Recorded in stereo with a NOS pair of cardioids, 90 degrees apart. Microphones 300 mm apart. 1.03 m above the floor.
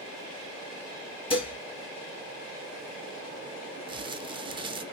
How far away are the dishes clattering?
About 1.2 m.